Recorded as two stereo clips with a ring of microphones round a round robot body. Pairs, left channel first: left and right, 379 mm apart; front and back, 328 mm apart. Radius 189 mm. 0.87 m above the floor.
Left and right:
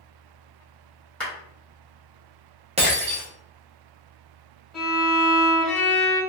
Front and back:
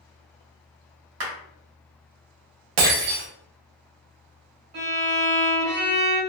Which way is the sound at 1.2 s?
175° left.